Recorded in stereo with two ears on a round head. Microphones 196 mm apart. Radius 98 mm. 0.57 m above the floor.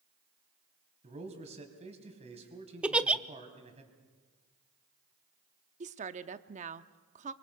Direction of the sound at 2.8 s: 5° right (ahead or behind).